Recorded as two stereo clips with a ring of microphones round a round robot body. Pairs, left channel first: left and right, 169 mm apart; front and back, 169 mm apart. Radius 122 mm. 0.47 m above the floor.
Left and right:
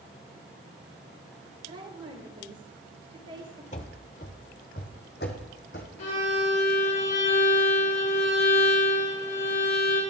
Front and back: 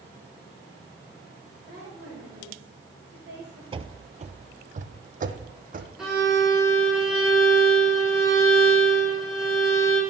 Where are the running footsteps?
130° left, 0.6 m; by 5.9 s 145° left, 1.6 m.